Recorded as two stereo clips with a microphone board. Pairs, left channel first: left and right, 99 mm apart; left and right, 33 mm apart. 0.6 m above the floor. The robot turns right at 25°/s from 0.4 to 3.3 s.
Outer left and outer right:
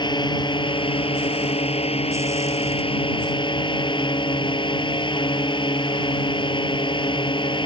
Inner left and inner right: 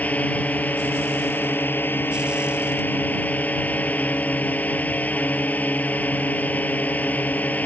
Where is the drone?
50° left; by 7.7 s 125° left.